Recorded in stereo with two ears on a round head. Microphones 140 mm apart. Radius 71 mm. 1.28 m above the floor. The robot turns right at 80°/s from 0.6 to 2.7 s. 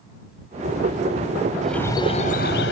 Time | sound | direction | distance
1.6 | a bird | straight ahead | ?